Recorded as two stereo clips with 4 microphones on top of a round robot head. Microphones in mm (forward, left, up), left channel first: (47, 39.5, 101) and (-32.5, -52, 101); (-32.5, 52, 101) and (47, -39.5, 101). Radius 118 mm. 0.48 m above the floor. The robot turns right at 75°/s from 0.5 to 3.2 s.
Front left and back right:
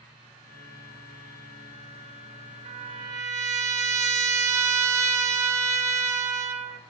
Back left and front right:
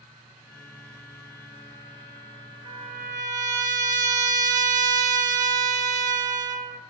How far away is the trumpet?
About 4.5 m.